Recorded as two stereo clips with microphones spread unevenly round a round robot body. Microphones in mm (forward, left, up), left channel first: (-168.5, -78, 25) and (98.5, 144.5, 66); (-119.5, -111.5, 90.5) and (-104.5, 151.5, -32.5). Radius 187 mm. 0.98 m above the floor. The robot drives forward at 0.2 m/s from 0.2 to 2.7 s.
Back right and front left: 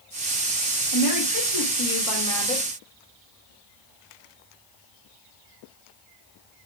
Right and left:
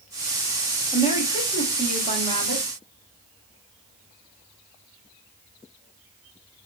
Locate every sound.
0.9 s a woman speaking: 170° right, 1.4 m